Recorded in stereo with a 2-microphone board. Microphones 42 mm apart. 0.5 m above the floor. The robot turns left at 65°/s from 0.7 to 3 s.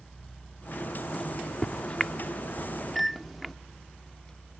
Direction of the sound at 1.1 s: 15° left (ahead or behind).